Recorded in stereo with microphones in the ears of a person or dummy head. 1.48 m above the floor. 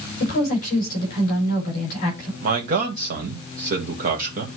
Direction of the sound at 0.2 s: 50° left (ahead or behind).